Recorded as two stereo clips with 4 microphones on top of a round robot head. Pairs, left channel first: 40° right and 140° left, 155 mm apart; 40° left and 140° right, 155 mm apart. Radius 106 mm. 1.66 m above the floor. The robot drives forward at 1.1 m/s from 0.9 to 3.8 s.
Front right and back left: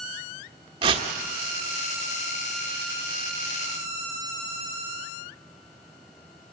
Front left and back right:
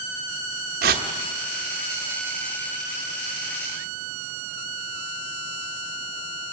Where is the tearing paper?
165° right, 1.3 m.